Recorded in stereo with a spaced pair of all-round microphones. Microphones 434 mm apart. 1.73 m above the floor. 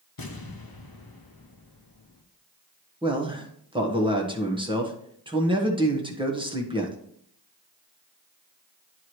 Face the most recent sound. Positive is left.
turn(degrees=-10)  # may be behind; listen again after turning